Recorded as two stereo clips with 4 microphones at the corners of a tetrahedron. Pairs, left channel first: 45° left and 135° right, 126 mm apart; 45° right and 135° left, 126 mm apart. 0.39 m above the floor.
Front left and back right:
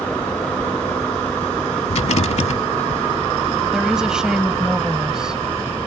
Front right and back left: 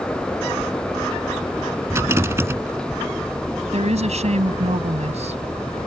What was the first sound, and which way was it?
A rattle, 65° left.